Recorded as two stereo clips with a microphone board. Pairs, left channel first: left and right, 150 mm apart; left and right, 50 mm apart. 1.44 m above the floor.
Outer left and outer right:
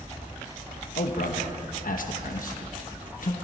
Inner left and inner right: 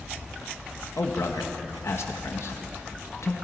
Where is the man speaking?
65° left (ahead or behind), 1.3 m.